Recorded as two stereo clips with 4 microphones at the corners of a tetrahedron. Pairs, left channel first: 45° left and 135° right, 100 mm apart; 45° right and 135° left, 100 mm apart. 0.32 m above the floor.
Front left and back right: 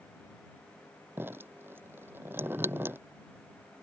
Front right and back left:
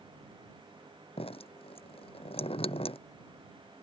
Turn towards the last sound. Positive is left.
turn(degrees=-65)